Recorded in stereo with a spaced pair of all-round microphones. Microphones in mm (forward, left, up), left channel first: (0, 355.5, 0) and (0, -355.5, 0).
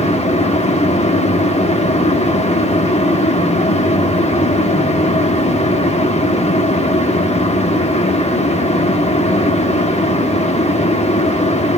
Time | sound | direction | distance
0.0 | a fan | 10° left (ahead or behind) | 1.5 m